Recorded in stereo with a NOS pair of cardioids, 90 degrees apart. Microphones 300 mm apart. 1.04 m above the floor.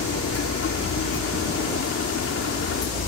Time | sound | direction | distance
0.0 | a machine running | 50° left | ?